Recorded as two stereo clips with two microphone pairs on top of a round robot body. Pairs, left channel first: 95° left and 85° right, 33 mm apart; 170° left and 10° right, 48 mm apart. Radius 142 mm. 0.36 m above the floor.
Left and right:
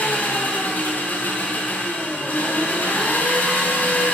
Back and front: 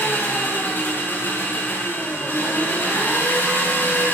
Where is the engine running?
120° left, 2.0 m.